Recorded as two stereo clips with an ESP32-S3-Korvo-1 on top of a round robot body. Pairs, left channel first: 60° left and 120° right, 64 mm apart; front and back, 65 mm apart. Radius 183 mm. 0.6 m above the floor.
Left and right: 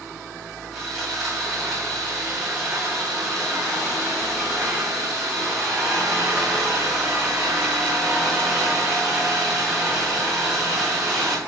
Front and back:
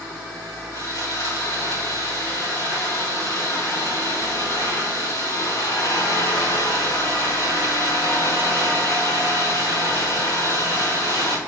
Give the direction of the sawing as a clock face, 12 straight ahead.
1 o'clock.